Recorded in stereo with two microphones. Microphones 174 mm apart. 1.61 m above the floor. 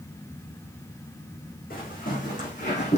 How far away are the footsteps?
About 5 m.